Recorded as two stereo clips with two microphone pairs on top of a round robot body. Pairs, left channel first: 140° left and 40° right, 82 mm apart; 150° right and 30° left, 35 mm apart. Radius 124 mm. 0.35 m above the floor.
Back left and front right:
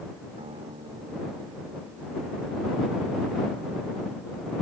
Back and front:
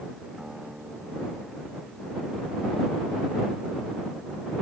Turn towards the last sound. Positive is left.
turn(degrees=-45)